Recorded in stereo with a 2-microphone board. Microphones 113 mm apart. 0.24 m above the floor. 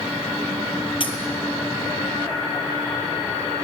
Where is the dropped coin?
50° left (ahead or behind), 1.1 m.